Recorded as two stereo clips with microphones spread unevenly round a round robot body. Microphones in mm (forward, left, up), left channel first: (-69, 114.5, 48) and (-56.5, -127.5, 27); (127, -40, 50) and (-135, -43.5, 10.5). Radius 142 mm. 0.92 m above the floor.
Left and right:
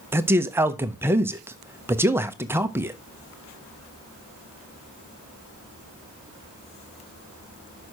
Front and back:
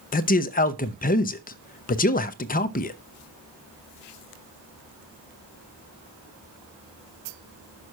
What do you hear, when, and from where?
0.1 s a man speaking: 30° right, 0.7 m